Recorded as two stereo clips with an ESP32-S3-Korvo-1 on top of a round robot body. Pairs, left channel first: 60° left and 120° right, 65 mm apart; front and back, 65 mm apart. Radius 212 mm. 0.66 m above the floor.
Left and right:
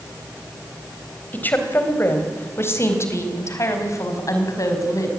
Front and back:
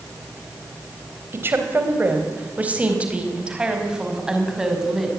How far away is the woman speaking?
About 4 m.